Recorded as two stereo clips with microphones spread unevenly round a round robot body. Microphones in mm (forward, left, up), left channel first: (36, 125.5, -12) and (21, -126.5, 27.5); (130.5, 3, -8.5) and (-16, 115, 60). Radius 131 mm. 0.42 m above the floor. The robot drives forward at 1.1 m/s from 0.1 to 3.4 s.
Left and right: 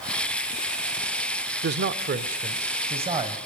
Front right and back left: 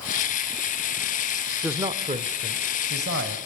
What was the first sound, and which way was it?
A man speaking, 105° right.